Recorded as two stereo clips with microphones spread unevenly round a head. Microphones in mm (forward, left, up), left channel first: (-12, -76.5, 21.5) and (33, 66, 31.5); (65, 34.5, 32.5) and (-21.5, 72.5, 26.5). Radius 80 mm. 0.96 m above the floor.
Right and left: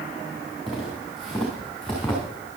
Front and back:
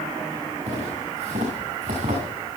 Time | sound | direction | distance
0.7 | footsteps | 160° left | 7 m